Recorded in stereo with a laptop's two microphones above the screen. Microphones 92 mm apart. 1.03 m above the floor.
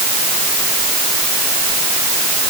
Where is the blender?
I don't hear a blender.